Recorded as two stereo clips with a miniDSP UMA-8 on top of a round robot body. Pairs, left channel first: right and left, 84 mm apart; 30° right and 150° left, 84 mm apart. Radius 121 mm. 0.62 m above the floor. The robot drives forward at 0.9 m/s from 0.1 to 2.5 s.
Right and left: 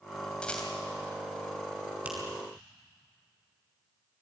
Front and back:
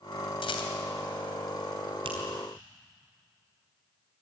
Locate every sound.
0.4 s a rattle: 10° right, 3 m
2.0 s a finger snap: 165° left, 4.5 m